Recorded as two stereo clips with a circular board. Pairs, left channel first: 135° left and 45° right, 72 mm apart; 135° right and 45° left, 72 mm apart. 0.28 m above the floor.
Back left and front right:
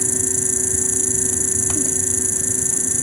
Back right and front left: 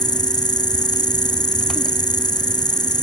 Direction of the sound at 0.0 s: 130° right.